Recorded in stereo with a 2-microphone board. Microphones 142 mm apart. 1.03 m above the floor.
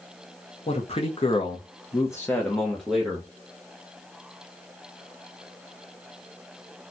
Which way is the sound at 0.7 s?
45° left (ahead or behind).